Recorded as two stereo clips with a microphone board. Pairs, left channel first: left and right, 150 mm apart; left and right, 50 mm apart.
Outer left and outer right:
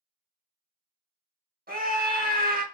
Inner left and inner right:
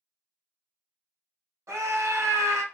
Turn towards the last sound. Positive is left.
turn(degrees=-85)